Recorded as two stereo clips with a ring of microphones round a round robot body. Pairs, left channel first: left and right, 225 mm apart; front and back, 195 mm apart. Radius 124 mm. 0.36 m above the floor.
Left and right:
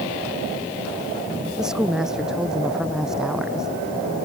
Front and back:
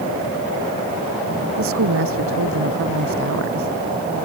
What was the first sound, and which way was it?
A woman speaking, straight behind.